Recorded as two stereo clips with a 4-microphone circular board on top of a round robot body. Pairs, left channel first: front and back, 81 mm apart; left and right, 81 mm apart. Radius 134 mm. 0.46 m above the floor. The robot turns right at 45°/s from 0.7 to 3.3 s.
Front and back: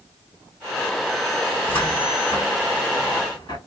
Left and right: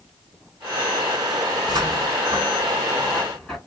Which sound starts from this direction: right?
A cupboard door, at 1.5 s.